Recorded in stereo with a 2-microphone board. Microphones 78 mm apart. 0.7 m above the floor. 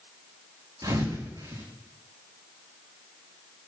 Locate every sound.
0.8 s a thud: 65° right (ahead or behind), 4 m